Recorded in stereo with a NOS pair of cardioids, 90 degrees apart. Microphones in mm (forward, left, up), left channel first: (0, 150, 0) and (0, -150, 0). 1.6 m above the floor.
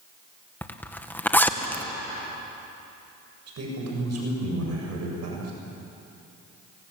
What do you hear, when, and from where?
0.6 s a zipper: 5° left, 1.8 m
3.5 s a man speaking: 55° right, 8 m